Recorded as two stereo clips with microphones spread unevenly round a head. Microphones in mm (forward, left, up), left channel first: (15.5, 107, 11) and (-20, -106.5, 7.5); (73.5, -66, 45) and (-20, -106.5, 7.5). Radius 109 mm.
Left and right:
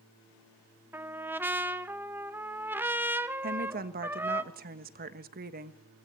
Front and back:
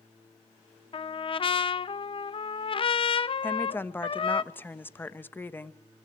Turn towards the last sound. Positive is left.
turn(degrees=-45)